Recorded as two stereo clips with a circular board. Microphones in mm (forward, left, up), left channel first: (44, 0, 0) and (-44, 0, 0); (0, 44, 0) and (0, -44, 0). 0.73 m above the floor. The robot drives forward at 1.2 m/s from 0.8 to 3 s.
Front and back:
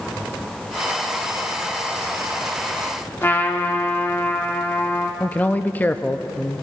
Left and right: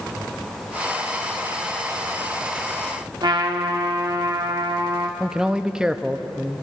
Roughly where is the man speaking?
Ahead right.